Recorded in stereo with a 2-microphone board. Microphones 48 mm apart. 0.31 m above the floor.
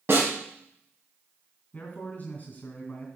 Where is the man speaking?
30° left (ahead or behind), 2.5 m.